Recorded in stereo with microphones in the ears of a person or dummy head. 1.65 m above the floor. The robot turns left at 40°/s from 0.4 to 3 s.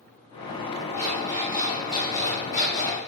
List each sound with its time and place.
0.9 s an alarm clock: 175° left, 2.0 m; by 3.0 s 90° left, 2.0 m